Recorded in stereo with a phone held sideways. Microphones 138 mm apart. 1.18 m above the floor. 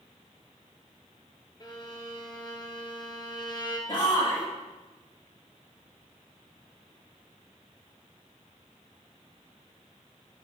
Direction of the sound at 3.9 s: 40° left (ahead or behind).